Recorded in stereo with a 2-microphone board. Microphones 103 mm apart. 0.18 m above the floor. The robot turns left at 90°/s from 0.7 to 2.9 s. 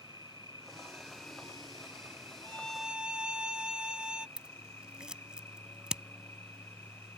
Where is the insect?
140° right; by 7.2 s 25° left.